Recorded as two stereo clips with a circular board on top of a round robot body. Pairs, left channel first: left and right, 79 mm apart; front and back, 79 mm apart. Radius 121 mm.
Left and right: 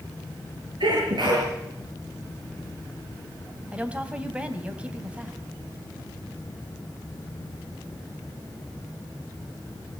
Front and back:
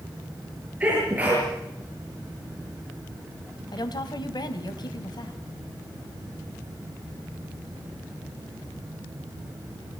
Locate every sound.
0.8 s a sneeze: 110° right, 7.5 m
3.7 s a woman speaking: 15° right, 2.5 m